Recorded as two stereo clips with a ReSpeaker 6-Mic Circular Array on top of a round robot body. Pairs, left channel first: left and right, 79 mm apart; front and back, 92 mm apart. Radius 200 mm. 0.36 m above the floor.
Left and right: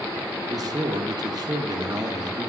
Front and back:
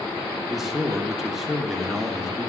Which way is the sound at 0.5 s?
95° right.